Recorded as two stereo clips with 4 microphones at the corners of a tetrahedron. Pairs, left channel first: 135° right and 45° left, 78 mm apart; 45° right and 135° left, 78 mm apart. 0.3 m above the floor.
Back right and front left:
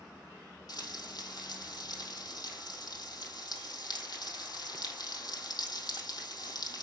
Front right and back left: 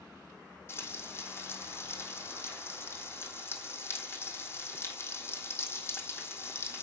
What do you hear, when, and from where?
0.7 s frying: 105° right, 3 m